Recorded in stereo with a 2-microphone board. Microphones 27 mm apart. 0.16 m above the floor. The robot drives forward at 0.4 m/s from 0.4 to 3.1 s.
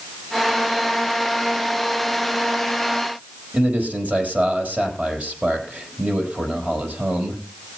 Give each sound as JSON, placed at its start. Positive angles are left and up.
{"t": 3.5, "sound": "a man speaking", "side_deg": -55, "distance_m": 4.5}